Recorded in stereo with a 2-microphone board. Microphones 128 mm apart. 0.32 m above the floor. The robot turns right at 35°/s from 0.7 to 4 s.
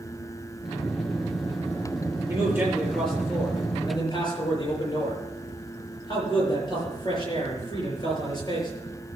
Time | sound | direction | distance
2.3 | a man speaking | 25° right | 6.5 m